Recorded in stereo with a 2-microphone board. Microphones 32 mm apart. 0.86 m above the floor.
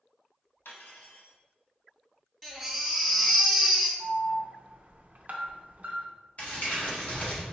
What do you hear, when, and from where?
0.7 s cutlery clinking: 80° left, 0.8 m
2.4 s a baby crying: centre (ahead or behind), 1.2 m
4.0 s an alarm: 45° right (ahead or behind), 0.6 m
6.4 s crumpling: 50° left (ahead or behind), 1.6 m